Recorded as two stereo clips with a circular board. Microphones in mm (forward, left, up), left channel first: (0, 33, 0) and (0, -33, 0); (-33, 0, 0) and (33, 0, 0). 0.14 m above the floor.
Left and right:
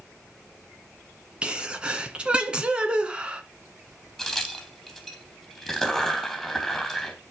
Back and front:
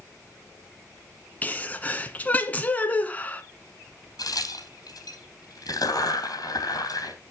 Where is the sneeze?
145° right, 1.6 m.